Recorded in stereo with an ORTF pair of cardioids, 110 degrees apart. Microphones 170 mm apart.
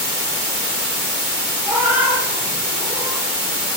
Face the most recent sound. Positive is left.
turn(degrees=-15)